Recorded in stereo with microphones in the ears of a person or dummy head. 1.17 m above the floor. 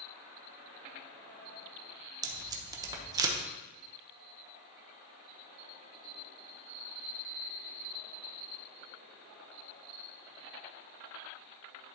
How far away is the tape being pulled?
About 1.1 m.